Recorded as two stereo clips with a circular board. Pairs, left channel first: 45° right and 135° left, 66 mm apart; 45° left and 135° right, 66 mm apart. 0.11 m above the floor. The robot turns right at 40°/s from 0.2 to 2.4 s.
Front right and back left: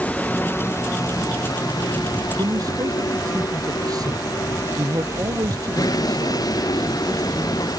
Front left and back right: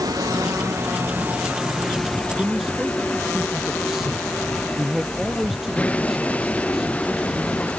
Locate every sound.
0.0 s a vehicle: 115° right; by 7.8 s 25° right
2.4 s a man speaking: 140° left